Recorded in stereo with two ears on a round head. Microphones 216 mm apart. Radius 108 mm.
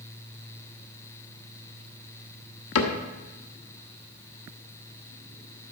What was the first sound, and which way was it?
A cupboard door, 70° left (ahead or behind).